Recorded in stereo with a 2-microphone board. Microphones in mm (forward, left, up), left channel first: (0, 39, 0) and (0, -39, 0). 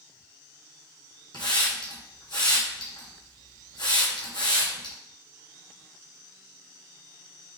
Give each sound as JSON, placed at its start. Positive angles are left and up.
{"t": 1.3, "sound": "a hiss", "side_deg": 70, "distance_m": 1.5}